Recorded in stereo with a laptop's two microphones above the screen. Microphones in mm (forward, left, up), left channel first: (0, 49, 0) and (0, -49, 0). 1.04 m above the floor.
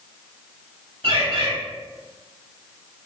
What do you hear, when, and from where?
1.0 s a bird: 65° right (ahead or behind), 1.6 m